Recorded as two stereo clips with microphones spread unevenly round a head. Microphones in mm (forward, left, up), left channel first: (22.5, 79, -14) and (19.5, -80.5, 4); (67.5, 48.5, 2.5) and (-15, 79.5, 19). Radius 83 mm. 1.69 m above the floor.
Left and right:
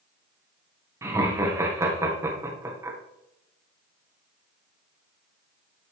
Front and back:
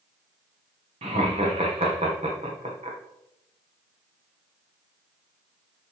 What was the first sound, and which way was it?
Laughter, 165° right.